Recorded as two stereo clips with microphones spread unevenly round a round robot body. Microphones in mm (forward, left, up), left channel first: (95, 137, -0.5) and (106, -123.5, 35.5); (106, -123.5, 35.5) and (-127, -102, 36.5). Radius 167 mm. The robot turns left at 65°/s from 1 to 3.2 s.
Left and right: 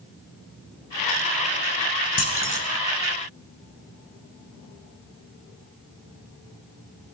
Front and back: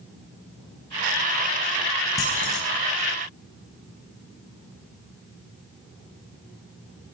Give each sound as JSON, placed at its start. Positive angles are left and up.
{"t": 2.2, "sound": "keys jangling", "azimuth_deg": 75, "distance_m": 4.5}